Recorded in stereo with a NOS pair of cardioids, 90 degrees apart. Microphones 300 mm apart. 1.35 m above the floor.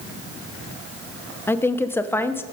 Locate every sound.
1.5 s a woman speaking: 5° left, 0.7 m